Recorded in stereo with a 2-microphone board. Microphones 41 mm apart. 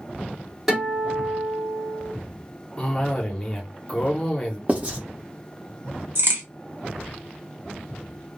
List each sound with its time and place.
0.7 s a guitar: centre (ahead or behind), 1.7 m
2.8 s a cough: 25° left (ahead or behind), 0.8 m
4.7 s writing: 35° right (ahead or behind), 1.0 m
6.2 s a crack: 65° right (ahead or behind), 1.1 m